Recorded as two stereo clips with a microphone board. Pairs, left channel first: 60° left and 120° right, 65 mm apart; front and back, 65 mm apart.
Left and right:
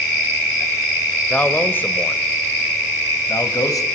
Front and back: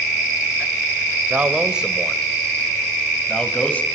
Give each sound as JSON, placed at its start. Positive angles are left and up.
{"t": 1.3, "sound": "a man speaking", "azimuth_deg": 120, "distance_m": 2.0}